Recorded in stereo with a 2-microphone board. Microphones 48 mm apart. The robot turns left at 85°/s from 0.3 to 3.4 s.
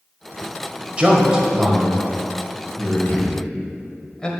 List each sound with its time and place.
1.0 s a man speaking: 25° right (ahead or behind), 1.5 m; by 4.3 s 15° left (ahead or behind), 1.5 m